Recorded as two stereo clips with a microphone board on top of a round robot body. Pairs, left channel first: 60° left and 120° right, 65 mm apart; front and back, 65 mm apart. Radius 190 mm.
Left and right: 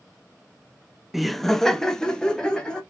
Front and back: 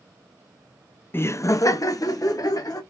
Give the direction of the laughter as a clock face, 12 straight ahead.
1 o'clock.